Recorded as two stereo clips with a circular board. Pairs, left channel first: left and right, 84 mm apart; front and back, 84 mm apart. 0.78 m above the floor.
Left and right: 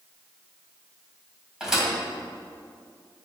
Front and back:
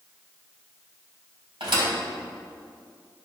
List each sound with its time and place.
1.6 s a thud: 175° right, 2 m